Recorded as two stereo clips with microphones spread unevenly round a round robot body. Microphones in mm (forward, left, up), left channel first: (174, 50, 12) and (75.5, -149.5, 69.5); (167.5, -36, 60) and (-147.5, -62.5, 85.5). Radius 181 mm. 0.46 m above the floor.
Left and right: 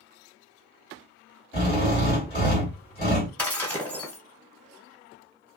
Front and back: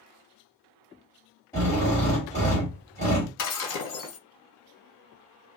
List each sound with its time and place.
1.5 s a drill: 75° left, 1.7 m
3.4 s breaking glass: 15° right, 1.3 m